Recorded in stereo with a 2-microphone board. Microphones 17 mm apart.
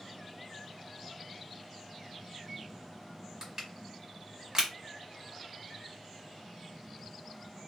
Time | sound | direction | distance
3.4 | crushing | 35° right (ahead or behind) | 1.1 m